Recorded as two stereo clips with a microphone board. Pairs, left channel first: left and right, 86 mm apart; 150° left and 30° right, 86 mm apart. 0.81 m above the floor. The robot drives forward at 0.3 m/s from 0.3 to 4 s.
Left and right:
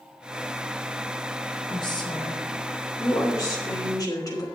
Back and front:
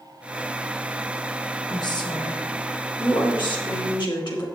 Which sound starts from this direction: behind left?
A woman speaking, at 1.7 s.